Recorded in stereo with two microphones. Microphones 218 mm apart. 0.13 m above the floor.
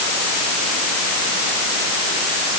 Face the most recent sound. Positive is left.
No sound to turn to.